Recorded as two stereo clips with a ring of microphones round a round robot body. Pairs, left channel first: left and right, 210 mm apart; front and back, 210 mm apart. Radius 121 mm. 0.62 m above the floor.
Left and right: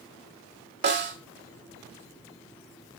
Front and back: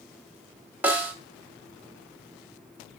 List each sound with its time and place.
0.8 s a snare drum: 100° right, 1.6 m